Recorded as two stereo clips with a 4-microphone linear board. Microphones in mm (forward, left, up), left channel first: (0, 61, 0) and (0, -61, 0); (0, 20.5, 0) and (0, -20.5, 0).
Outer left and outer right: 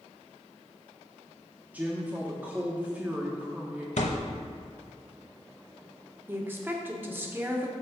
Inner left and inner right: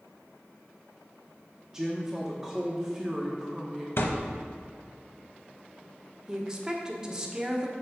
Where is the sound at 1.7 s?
15° right (ahead or behind), 0.9 m.